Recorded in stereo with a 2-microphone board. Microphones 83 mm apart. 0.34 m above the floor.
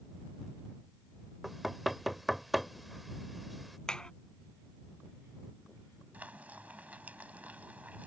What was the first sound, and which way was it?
Knocking, centre (ahead or behind).